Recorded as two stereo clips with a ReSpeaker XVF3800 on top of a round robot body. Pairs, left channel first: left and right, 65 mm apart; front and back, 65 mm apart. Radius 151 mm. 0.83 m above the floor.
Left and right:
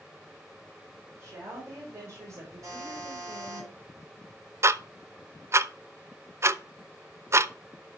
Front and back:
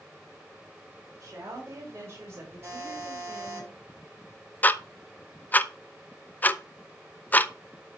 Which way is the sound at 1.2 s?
135° right.